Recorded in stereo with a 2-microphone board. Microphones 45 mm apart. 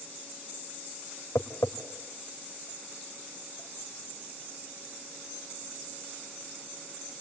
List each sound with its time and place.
1.4 s tapping: 80° left, 2.5 m